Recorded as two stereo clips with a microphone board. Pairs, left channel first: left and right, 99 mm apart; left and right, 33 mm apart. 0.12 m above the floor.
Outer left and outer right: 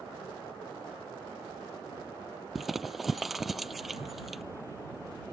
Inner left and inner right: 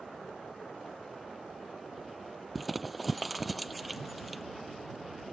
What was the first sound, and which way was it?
Crumpling, centre (ahead or behind).